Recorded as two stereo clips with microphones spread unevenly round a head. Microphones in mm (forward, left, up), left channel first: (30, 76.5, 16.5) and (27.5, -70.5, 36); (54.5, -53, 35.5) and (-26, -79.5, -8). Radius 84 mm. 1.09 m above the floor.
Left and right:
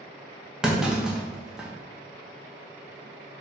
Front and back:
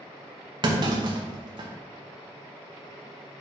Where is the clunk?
Straight behind, 0.9 m.